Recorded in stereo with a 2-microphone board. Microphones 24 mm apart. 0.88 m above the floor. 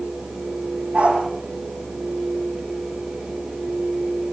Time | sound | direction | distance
0.9 | a dog barking | 65° right (ahead or behind) | 8 m